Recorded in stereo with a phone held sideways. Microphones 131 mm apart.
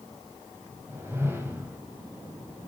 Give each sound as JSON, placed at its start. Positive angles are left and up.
{"t": 0.9, "sound": "a whoosh", "side_deg": -20, "distance_m": 2.5}